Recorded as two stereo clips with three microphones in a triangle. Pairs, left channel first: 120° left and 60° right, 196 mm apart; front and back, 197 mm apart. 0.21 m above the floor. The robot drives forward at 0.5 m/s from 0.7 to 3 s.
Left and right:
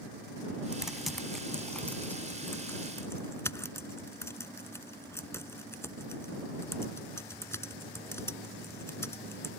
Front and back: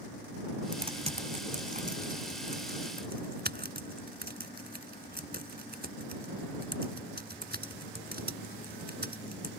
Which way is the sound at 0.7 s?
140° right.